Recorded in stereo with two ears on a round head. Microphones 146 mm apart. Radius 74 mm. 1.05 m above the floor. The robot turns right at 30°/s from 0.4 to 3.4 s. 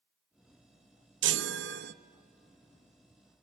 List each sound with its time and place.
1.2 s a chime: 80° right, 0.6 m; by 1.9 s 65° right (ahead or behind), 0.6 m